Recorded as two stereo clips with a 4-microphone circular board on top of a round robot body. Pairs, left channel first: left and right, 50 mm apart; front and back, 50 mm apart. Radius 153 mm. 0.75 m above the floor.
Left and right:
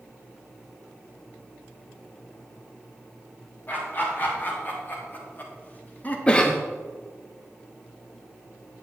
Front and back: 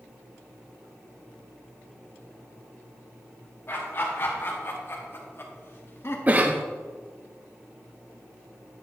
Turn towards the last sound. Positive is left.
turn(degrees=145)